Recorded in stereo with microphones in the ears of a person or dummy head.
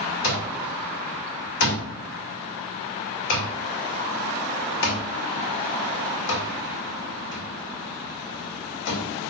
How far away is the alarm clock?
About 2.5 m.